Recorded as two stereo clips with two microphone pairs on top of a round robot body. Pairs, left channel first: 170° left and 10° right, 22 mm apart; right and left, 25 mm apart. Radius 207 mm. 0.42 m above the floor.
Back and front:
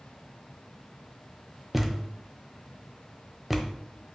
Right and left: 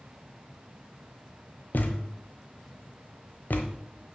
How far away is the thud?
About 1.1 m.